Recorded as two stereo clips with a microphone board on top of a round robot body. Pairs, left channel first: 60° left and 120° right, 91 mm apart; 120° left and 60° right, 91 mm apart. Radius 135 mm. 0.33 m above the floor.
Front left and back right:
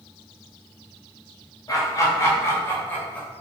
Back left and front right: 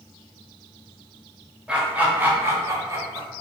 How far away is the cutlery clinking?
I don't hear cutlery clinking.